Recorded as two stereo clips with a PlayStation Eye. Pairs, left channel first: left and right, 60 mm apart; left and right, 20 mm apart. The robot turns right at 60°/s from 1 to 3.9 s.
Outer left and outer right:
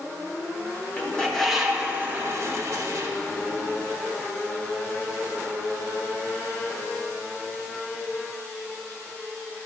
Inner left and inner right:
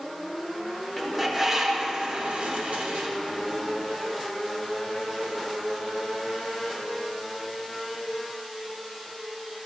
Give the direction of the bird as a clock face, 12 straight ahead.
7 o'clock.